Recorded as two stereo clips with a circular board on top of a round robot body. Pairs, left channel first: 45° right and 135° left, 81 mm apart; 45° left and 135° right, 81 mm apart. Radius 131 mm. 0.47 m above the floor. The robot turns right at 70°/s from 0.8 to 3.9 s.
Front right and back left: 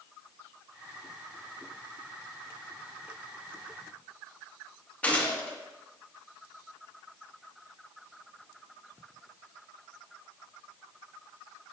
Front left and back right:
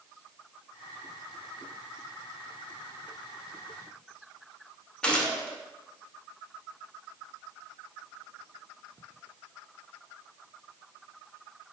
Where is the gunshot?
10° right, 0.8 m.